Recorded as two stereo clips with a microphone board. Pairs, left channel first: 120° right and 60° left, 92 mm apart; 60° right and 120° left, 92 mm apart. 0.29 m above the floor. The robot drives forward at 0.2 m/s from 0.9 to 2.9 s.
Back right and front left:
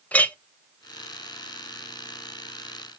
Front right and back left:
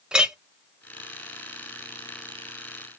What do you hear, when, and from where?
0.1 s a clink: 170° right, 0.6 m